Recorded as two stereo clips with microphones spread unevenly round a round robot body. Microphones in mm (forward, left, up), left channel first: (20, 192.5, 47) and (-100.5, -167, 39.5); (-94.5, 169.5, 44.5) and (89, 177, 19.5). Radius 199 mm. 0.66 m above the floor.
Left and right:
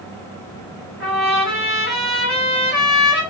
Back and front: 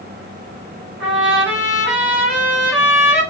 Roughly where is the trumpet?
Ahead.